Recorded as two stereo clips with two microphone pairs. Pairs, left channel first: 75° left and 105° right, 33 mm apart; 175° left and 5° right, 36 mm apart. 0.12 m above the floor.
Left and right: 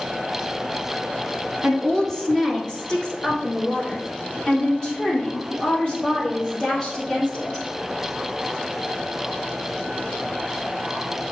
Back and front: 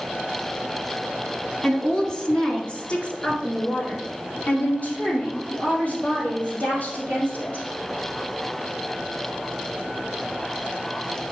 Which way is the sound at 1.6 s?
115° left.